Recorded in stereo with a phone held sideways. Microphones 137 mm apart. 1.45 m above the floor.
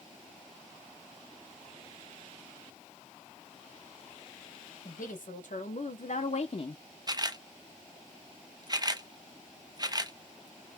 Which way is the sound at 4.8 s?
80° left.